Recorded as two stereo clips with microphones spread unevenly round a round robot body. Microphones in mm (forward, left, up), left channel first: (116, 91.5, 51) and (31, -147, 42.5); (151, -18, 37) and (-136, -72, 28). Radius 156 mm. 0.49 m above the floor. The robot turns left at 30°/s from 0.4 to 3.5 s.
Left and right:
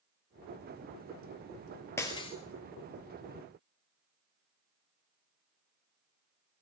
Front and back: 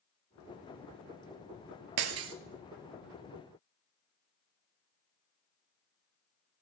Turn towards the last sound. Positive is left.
turn(degrees=105)